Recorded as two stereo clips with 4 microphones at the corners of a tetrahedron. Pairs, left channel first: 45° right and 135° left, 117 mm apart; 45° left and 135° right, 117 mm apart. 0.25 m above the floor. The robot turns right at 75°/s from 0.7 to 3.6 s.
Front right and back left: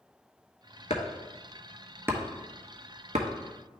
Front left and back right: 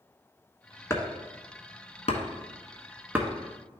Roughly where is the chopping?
Ahead right.